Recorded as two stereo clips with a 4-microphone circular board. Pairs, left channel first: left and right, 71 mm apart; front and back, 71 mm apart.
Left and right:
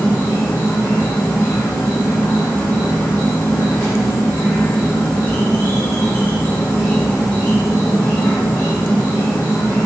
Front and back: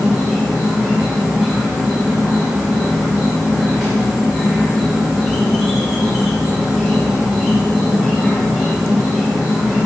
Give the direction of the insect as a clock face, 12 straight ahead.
9 o'clock.